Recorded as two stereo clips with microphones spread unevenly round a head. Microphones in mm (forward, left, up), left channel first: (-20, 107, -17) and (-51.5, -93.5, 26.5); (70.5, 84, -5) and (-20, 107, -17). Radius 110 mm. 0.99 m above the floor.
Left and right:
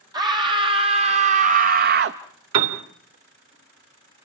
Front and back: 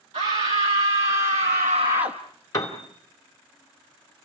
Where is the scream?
170° right, 1.6 m; by 2.2 s 135° right, 0.8 m.